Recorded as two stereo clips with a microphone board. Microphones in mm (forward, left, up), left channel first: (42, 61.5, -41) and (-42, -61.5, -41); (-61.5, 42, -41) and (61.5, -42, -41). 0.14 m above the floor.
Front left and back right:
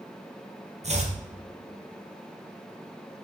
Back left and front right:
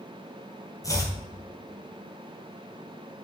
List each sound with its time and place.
0.8 s chopping: 150° right, 2 m